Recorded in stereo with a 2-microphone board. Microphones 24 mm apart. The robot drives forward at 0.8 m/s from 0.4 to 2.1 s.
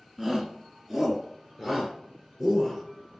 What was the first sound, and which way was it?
A shout, 15° right (ahead or behind).